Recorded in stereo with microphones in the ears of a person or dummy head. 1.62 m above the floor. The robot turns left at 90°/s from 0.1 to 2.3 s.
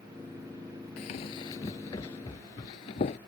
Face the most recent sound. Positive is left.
turn(degrees=30)  # may be behind; listen again after turning